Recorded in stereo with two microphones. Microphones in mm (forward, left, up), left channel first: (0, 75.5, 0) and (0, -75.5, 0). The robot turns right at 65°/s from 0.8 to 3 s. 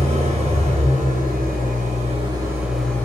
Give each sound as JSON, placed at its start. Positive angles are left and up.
{"t": 0.0, "sound": "an engine running", "azimuth_deg": -130, "distance_m": 2.5}